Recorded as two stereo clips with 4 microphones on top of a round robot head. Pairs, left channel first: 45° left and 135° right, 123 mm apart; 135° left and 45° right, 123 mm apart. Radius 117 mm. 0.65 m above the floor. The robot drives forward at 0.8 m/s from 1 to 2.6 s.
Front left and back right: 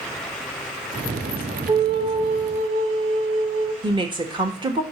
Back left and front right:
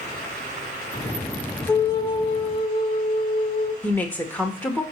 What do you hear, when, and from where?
1.7 s a flute: 170° right, 0.6 m; by 3.7 s 175° right, 1.2 m
3.8 s a woman speaking: 155° right, 1.0 m